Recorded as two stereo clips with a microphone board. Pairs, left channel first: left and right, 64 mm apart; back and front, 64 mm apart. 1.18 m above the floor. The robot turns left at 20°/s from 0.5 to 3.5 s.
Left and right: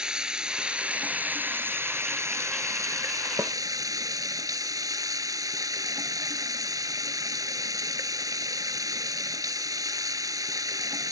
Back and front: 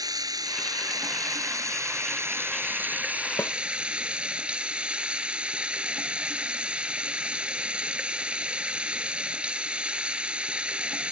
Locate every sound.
0.0 s running water: 15° right; by 11.1 s 75° right
3.4 s a snare drum: 135° right; by 3.5 s 140° right